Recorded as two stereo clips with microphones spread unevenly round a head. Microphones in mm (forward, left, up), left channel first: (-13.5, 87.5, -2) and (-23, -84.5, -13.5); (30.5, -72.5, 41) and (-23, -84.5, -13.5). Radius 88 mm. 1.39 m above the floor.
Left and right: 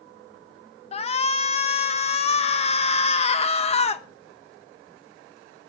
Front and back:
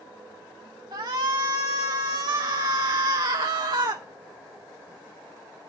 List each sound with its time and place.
0.9 s a shout: 140° left, 1.1 m